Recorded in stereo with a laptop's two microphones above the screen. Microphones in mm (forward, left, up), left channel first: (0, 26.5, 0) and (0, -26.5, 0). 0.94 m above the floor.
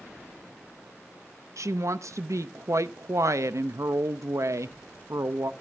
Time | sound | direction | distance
1.6 | a woman speaking | 70° right (ahead or behind) | 0.6 m